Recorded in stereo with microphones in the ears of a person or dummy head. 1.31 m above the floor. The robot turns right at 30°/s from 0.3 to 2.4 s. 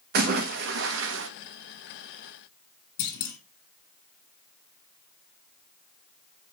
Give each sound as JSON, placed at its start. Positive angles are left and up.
{"t": 0.1, "sound": "a splash", "side_deg": -50, "distance_m": 1.0}
{"t": 3.0, "sound": "a clunk", "side_deg": 65, "distance_m": 3.0}